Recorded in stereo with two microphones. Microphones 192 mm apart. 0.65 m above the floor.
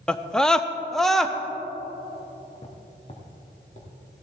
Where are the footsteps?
35° left (ahead or behind), 2 m.